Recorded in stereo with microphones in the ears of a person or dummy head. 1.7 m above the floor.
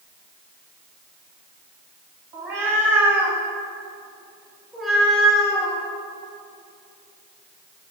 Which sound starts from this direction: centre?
A cat meowing, at 2.3 s.